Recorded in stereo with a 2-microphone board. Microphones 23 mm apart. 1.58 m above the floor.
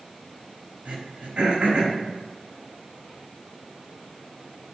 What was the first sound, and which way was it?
Throat clearing, 60° right (ahead or behind).